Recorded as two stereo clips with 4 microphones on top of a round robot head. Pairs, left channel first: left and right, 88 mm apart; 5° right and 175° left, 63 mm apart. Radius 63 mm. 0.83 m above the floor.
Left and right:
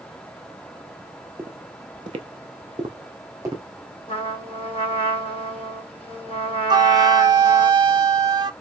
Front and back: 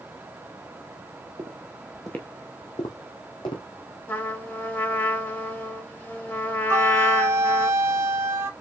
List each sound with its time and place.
1.4 s footsteps: 145° right, 1.3 m; by 3.6 s 30° right, 2.5 m
4.1 s a trumpet: 55° left, 3 m
6.7 s a flute: 130° right, 0.9 m